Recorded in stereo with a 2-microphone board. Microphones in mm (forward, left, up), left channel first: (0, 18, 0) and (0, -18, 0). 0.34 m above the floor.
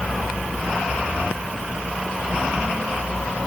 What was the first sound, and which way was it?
Only background noise.